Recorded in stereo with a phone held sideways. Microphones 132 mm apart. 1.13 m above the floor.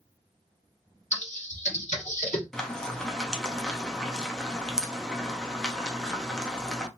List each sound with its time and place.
1.1 s typing on a keyboard: 70° left (ahead or behind), 1.1 m
2.5 s frying: 5° left (ahead or behind), 0.6 m